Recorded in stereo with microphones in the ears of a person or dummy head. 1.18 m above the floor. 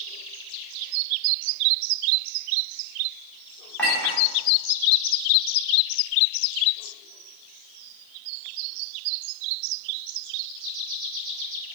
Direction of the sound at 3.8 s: 5° left (ahead or behind).